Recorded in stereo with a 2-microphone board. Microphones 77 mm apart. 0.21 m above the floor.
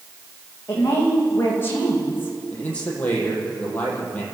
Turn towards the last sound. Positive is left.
turn(degrees=20)  # may be behind; listen again after turning